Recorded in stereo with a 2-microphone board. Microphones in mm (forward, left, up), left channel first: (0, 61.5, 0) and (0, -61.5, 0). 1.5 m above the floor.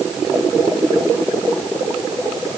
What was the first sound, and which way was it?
Only background noise.